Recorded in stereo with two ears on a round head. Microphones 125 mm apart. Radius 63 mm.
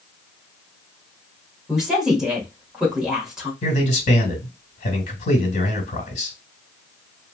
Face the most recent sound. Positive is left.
turn(degrees=55)  # may be behind; listen again after turning